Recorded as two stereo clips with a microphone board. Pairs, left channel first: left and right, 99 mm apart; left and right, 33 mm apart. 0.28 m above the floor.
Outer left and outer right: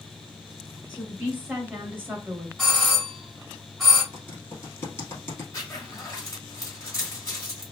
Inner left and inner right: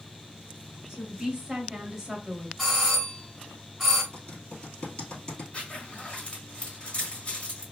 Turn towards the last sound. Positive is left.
turn(degrees=30)  # may be behind; listen again after turning